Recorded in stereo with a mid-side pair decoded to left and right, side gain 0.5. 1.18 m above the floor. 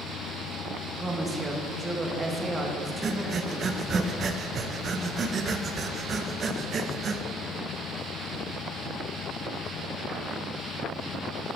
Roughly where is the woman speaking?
Ahead right.